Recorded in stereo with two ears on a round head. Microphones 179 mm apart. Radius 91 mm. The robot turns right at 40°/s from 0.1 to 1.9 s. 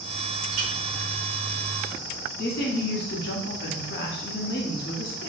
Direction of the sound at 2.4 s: 60° left (ahead or behind).